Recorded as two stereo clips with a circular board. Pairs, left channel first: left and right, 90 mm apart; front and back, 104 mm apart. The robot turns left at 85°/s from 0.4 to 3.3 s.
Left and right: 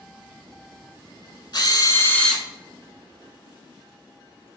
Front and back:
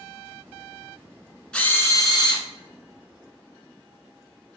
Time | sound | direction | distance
1.5 | a drill | 80° left | 0.8 m